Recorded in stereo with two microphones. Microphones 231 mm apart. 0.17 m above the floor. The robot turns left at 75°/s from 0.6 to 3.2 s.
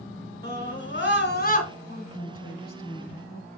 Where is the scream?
140° left, 2.0 m; by 1.7 s 60° left, 2.0 m.